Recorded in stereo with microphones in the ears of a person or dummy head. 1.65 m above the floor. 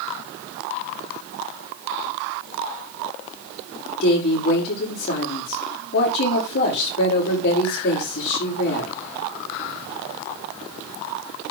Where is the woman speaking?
65° left (ahead or behind), 5 m.